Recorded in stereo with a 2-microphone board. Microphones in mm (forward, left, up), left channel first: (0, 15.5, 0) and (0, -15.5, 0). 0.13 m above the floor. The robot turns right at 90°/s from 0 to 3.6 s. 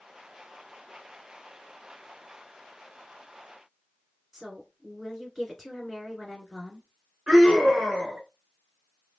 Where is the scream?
25° right (ahead or behind), 1.9 m.